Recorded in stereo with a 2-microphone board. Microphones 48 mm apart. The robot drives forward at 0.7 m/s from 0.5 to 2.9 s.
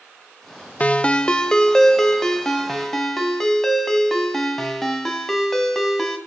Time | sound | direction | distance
0.8 | a ringtone | 30° left (ahead or behind) | 0.5 m